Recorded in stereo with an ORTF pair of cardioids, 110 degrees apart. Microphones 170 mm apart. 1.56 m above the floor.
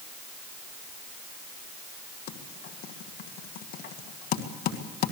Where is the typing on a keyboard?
65° left, 2 m.